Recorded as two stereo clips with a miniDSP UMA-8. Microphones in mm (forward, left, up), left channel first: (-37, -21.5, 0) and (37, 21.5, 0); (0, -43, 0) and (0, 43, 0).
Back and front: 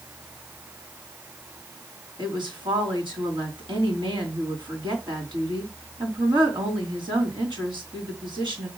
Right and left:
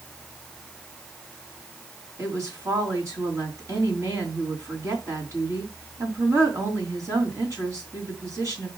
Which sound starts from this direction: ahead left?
A woman speaking, at 2.2 s.